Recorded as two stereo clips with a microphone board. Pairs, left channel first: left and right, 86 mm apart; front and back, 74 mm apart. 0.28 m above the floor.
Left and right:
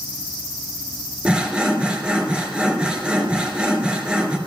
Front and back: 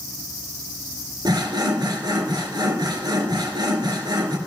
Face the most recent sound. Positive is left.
turn(degrees=-165)